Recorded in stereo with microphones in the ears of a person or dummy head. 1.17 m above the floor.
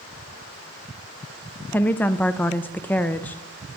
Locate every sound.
1.7 s a woman speaking: 10° left (ahead or behind), 0.6 m